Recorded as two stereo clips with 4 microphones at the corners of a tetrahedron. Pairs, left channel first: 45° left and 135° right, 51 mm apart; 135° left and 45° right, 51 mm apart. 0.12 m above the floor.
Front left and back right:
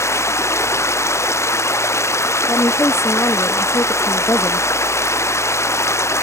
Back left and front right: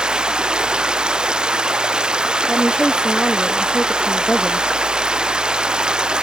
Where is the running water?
25° left.